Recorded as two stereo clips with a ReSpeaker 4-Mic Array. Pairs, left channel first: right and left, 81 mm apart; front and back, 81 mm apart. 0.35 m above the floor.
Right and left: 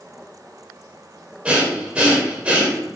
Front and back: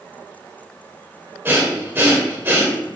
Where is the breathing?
150° left, 0.9 m.